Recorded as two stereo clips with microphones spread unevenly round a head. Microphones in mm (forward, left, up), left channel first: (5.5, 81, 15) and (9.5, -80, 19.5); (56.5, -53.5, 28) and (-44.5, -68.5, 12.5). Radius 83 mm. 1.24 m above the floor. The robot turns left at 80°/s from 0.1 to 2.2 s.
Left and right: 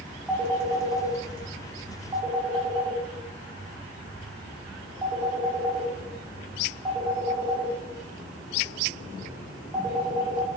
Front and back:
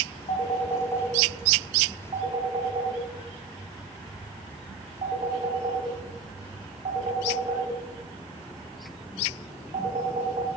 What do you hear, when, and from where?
0.3 s a phone ringing: 5° right, 2.5 m; by 10.5 s 155° right, 2.5 m